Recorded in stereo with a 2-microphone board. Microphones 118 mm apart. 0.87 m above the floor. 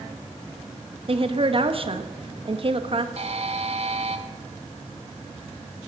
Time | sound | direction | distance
1.1 | a woman speaking | 50° right (ahead or behind) | 1.0 m
3.2 | a buzzer | 60° right (ahead or behind) | 1.1 m